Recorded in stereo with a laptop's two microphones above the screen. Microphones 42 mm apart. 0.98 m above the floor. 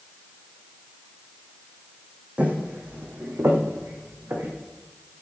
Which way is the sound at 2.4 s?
30° right (ahead or behind).